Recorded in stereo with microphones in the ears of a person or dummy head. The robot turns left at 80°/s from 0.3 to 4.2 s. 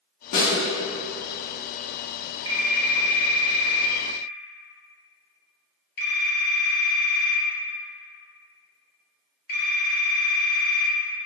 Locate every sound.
0.3 s a snare drum: 50° left (ahead or behind), 1.0 m; by 0.6 s 35° left (ahead or behind), 1.0 m
2.5 s a phone ringing: 25° right (ahead or behind), 0.9 m; by 10.9 s 60° left (ahead or behind), 0.9 m